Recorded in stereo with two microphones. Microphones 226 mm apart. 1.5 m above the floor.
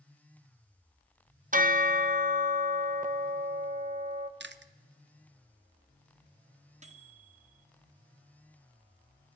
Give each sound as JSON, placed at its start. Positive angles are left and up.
{"t": 1.5, "sound": "a bell", "side_deg": -40, "distance_m": 0.7}
{"t": 4.4, "sound": "chewing", "side_deg": -55, "distance_m": 0.5}
{"t": 6.8, "sound": "a microwave", "side_deg": -35, "distance_m": 0.8}